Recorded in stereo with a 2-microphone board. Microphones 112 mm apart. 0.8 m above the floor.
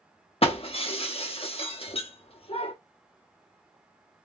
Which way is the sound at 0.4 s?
55° left (ahead or behind).